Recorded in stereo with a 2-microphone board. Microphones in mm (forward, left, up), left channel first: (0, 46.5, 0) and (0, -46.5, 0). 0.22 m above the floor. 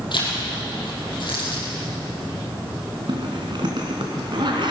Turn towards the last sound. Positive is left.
turn(degrees=-60)  # may be behind; listen again after turning